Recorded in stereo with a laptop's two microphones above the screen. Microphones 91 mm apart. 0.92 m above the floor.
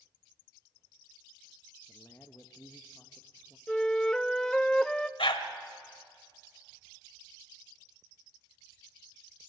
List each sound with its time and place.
1.9 s a man speaking: 25° left (ahead or behind), 0.7 m
3.7 s a flute: 5° left (ahead or behind), 0.6 m
5.2 s a dog barking: 75° left (ahead or behind), 1.5 m